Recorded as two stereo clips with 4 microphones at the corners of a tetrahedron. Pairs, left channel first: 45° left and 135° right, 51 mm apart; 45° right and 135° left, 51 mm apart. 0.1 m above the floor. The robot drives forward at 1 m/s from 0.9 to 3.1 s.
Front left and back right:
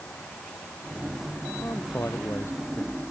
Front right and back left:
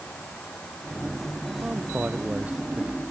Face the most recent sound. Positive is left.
turn(degrees=75)